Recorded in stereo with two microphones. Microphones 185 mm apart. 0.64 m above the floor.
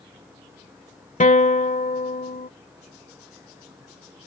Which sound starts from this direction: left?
A guitar, at 1.2 s.